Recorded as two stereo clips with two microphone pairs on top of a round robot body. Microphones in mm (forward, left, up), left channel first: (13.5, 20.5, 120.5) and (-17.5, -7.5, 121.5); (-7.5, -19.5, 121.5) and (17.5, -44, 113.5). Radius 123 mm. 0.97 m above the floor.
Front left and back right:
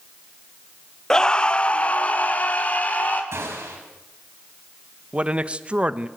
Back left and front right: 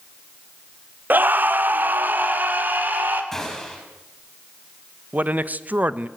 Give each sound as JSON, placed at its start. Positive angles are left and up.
{"t": 1.1, "sound": "a scream", "azimuth_deg": -30, "distance_m": 0.8}
{"t": 3.3, "sound": "a gunshot", "azimuth_deg": -145, "distance_m": 6.5}
{"t": 5.1, "sound": "a man speaking", "azimuth_deg": -75, "distance_m": 1.0}